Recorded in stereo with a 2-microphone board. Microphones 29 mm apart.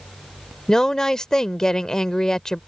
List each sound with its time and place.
0.7 s a woman speaking: 25° left (ahead or behind)